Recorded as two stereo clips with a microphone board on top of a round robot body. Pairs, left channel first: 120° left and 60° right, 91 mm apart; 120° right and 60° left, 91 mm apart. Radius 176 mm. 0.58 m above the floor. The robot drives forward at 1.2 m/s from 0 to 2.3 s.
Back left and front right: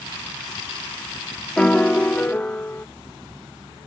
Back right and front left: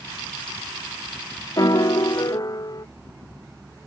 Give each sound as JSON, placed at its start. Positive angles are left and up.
{"t": 1.6, "sound": "a piano", "azimuth_deg": -160}